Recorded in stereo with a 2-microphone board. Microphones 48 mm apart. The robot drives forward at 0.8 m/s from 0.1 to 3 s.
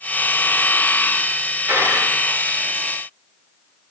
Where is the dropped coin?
60° right (ahead or behind), 6 m; by 2.1 s 55° right (ahead or behind), 6.5 m.